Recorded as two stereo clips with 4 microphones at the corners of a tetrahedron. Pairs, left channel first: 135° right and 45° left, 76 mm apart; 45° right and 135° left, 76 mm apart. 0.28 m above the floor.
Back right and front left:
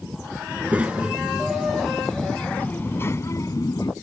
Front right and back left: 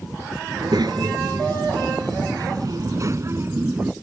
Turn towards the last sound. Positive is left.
turn(degrees=-160)